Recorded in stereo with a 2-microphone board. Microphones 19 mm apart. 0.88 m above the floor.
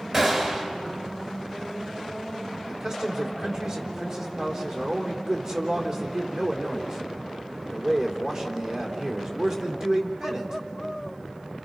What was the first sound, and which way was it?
A gunshot, 35° right (ahead or behind).